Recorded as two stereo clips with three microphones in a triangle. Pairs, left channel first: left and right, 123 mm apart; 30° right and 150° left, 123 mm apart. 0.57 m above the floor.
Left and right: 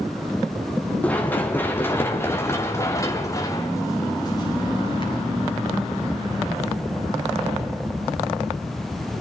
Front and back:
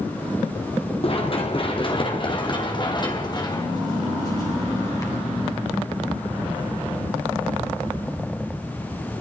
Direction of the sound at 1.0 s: 10° left.